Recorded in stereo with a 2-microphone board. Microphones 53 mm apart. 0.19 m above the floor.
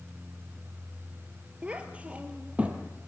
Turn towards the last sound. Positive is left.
turn(degrees=-25)  # may be behind; listen again after turning